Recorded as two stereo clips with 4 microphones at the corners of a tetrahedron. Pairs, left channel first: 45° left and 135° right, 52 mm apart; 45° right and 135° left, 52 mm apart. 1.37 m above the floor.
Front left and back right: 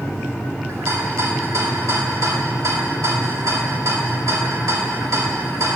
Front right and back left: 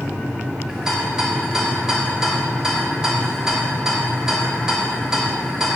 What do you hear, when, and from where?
0.7 s a rattle: 150° right, 2.5 m